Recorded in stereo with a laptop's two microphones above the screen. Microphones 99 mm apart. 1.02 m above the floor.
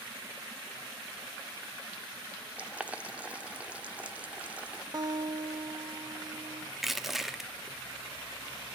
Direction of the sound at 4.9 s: 40° right (ahead or behind).